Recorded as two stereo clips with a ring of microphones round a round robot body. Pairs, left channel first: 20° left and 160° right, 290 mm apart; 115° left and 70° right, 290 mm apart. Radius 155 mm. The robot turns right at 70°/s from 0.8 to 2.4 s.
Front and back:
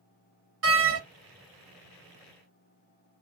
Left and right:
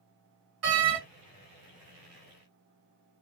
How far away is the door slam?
About 1.7 m.